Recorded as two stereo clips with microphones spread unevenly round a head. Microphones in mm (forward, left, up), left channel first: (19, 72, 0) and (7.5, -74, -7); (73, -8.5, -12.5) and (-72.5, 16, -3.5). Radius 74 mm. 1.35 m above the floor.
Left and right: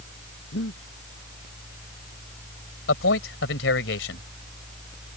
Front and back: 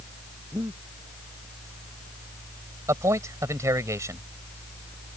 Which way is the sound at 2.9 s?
100° left.